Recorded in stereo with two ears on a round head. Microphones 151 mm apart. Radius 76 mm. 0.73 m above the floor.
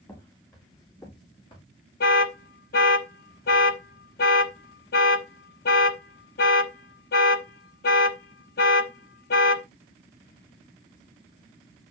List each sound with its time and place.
0.1 s footsteps: 20° left (ahead or behind), 7.5 m; by 1.6 s 35° left (ahead or behind), 7 m
2.0 s an alarm: 60° left (ahead or behind), 1.1 m